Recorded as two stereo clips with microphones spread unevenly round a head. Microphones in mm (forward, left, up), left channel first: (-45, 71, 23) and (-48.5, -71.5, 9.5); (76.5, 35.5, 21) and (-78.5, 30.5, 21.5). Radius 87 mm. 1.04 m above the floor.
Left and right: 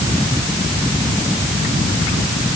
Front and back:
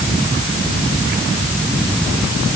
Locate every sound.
Only background noise.